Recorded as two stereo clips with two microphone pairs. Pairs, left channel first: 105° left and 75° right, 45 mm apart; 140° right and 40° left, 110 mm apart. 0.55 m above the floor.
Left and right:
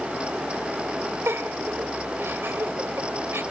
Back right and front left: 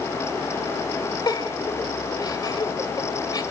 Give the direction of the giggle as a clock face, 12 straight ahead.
3 o'clock.